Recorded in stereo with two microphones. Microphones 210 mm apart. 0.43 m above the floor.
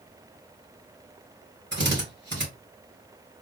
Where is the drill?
60° right (ahead or behind), 2.5 m.